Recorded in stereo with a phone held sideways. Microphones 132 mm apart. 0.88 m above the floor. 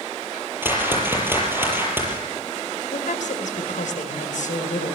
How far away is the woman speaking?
About 4 m.